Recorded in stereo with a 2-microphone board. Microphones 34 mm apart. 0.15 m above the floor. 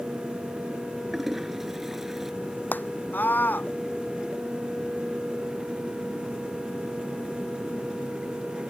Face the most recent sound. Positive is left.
turn(degrees=70)  # may be behind; listen again after turning